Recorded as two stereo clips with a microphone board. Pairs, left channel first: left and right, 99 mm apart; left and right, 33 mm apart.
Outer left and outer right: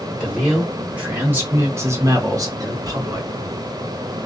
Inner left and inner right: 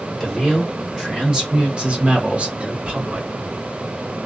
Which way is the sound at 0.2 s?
5° right (ahead or behind).